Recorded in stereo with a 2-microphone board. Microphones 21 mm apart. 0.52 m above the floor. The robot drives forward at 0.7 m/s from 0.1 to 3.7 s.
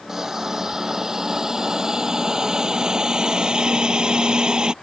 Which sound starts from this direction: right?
A hiss, at 0.1 s.